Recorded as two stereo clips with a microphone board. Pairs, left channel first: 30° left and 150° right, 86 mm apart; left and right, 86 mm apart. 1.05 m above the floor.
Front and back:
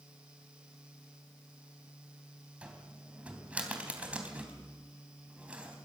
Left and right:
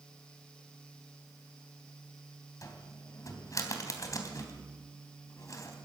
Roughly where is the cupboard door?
Behind left.